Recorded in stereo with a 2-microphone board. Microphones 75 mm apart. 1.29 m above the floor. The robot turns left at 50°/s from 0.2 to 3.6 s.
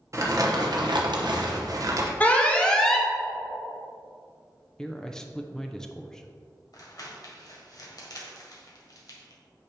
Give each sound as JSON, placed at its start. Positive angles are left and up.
{"t": 0.1, "sound": "crumpling", "azimuth_deg": -45, "distance_m": 1.1}
{"t": 2.2, "sound": "an alarm", "side_deg": 20, "distance_m": 1.0}
{"t": 4.8, "sound": "a man speaking", "side_deg": 10, "distance_m": 0.5}
{"t": 6.7, "sound": "crumpling", "side_deg": 55, "distance_m": 1.6}